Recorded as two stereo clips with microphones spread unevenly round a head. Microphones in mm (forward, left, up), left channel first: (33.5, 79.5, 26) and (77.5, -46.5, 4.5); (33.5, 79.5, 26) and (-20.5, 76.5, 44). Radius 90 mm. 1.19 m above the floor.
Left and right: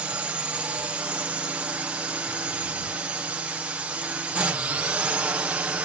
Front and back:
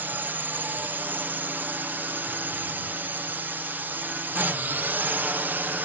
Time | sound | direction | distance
0.0 | a drone | 120° right | ?